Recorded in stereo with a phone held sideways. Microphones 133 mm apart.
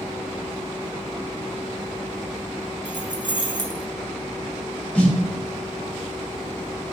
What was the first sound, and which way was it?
Keys jangling, 35° right (ahead or behind).